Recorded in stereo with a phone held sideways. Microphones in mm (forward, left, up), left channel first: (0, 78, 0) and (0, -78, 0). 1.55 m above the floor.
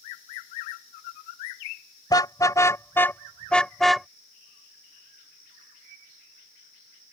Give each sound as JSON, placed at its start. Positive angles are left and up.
{"t": 2.1, "sound": "a car horn", "side_deg": 25}